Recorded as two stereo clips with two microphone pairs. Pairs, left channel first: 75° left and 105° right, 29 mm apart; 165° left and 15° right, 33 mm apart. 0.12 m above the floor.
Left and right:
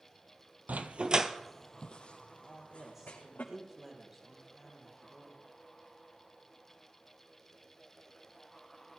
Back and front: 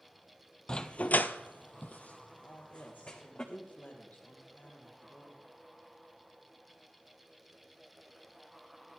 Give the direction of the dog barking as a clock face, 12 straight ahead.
4 o'clock.